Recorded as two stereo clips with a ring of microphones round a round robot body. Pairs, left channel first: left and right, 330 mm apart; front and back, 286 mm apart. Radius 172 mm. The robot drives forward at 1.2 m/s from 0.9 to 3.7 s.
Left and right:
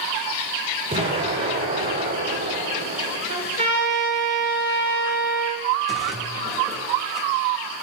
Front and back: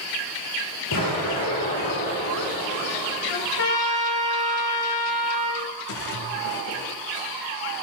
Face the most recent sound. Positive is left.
turn(degrees=0)